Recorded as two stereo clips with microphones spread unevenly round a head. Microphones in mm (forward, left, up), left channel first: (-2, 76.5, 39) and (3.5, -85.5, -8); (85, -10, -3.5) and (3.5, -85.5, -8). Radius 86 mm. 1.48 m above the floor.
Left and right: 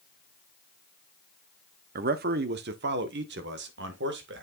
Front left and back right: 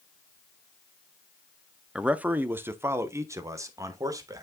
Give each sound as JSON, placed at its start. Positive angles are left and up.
{"t": 1.9, "sound": "a man speaking", "azimuth_deg": -55, "distance_m": 0.8}